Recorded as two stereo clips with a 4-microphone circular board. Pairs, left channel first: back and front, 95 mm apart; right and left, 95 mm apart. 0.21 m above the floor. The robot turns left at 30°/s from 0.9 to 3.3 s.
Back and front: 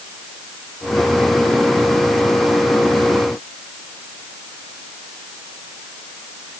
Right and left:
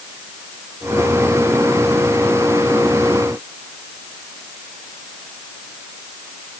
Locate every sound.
Only background noise.